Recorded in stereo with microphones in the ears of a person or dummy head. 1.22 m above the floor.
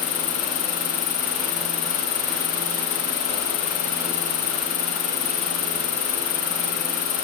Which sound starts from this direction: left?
An insect, at 0.0 s.